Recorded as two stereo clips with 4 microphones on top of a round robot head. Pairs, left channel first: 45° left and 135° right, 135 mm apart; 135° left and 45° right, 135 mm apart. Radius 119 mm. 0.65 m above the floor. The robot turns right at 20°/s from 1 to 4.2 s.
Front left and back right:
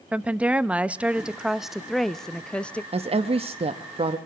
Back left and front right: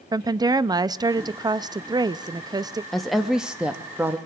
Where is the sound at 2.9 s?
140° right, 0.9 m; by 4.2 s 115° right, 0.9 m.